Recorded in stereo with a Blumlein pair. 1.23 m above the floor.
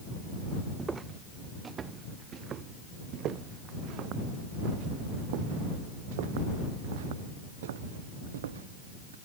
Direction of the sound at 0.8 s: 15° right.